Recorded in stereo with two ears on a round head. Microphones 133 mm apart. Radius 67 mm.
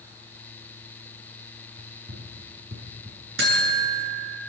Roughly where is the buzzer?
Right.